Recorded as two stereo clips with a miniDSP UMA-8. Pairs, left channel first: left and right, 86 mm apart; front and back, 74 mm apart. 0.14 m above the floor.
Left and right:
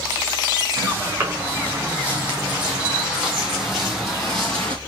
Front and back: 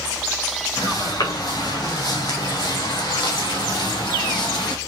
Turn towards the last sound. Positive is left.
turn(degrees=10)